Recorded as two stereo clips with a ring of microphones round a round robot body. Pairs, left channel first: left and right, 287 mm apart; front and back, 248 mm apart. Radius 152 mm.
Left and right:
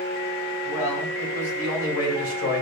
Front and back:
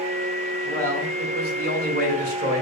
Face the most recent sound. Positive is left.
turn(degrees=130)